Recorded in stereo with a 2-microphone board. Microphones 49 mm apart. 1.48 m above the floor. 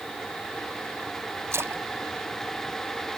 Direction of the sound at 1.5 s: 60° right (ahead or behind).